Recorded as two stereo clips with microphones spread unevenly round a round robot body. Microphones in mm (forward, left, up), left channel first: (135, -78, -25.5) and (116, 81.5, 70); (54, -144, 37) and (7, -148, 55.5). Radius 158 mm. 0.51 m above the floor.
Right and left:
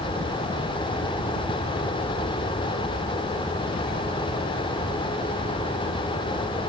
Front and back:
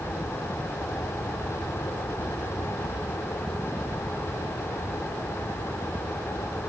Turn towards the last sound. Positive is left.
No sound to turn to.